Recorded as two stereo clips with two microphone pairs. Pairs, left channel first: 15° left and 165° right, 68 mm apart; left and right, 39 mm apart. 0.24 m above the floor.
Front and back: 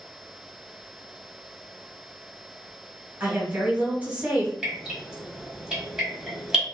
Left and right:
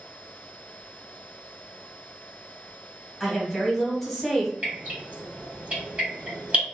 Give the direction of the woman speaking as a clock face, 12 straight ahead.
6 o'clock.